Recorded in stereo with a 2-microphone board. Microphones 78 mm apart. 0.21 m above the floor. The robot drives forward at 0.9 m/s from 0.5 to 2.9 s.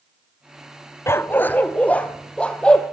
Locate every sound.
1.1 s a dog barking: 35° left (ahead or behind), 0.8 m; by 2.8 s 10° left (ahead or behind), 2 m